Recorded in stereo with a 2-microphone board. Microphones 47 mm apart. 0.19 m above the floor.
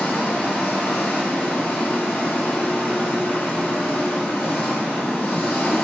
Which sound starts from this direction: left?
An engine running, at 0.0 s.